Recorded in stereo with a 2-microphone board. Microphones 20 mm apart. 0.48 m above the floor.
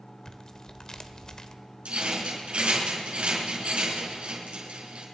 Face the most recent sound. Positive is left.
turn(degrees=-80)